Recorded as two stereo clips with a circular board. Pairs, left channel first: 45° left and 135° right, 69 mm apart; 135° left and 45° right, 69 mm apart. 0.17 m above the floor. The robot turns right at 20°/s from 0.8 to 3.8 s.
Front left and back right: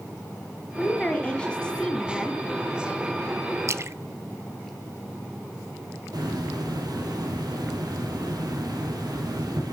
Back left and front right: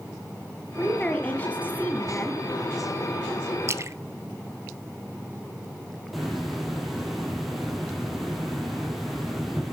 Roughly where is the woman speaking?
Left.